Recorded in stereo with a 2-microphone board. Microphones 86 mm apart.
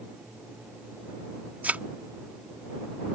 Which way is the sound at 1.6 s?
20° right (ahead or behind).